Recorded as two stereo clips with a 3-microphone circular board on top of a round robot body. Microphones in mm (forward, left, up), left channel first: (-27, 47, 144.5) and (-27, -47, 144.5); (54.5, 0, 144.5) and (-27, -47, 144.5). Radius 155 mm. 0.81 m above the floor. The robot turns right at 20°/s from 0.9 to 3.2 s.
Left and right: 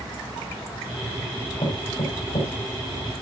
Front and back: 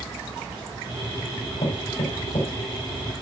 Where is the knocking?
55° left, 5 m; by 2.5 s 70° left, 5 m.